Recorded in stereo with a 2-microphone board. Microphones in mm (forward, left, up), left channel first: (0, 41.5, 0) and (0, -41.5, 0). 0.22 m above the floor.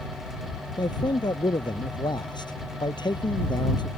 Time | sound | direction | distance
0.8 | a man speaking | 65° left (ahead or behind) | ?